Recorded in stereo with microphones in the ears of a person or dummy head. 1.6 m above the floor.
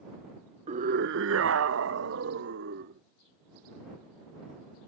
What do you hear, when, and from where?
0.7 s a scream: 35° right (ahead or behind); by 3.0 s 65° right (ahead or behind)